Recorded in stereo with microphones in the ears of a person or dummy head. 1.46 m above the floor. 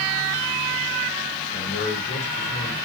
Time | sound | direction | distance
1.5 | a man speaking | 50° left (ahead or behind) | 6 m